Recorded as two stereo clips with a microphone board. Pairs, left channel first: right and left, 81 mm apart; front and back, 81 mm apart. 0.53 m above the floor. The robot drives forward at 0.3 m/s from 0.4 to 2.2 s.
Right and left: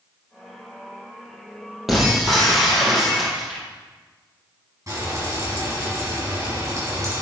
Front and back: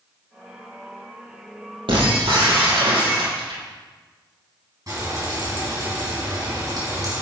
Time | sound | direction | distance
1.9 | breaking glass | 175° left | 4 m
4.9 | frying | 135° left | 5 m